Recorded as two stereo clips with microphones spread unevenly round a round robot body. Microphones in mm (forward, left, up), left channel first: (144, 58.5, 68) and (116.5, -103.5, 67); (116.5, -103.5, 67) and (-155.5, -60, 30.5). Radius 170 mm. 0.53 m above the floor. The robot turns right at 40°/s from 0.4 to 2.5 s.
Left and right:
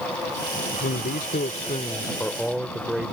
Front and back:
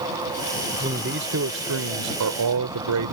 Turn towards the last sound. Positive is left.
turn(degrees=175)